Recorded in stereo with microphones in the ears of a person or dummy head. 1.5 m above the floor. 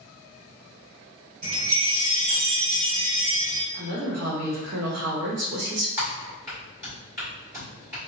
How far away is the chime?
About 1.2 m.